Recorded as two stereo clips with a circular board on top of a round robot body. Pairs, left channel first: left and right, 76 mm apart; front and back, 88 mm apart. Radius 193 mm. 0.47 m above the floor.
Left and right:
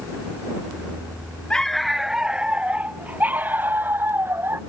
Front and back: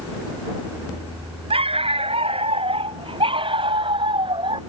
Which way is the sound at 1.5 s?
170° left.